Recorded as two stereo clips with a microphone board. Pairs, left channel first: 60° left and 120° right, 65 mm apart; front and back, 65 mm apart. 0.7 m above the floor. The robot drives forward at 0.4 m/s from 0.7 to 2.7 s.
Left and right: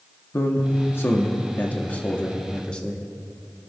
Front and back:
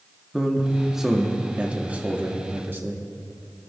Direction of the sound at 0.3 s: 90° left.